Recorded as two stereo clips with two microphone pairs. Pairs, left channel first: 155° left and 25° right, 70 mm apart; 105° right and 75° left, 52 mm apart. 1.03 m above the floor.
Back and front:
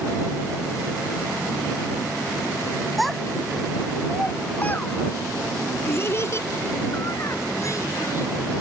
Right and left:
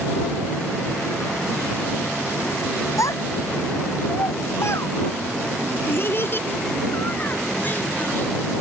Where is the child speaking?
115° right; by 8.3 s 160° right.